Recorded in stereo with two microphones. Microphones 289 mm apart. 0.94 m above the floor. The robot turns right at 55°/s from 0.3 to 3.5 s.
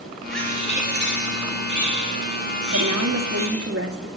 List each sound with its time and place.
0.3 s a bird: straight ahead, 3.5 m; by 3.7 s 175° left, 3.5 m
2.7 s a woman speaking: 95° right, 2 m; by 4.1 s 55° right, 2 m